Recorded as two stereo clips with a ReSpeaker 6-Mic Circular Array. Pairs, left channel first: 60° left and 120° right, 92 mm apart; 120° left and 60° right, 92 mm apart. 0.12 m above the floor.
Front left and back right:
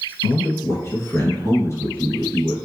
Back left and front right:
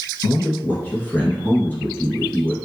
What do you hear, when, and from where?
0.2 s a man speaking: 75° left, 1.5 m